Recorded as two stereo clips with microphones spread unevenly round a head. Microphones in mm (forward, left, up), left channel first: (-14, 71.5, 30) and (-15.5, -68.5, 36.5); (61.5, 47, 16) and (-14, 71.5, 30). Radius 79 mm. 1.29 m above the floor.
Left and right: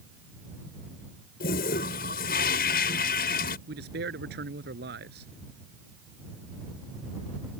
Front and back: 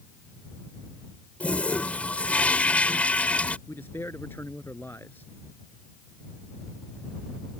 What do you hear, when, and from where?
1.4 s a toilet flushing: 60° left
3.7 s a man speaking: 95° right